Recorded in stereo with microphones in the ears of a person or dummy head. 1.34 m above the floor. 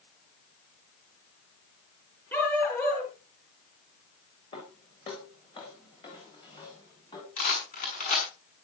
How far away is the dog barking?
About 6 m.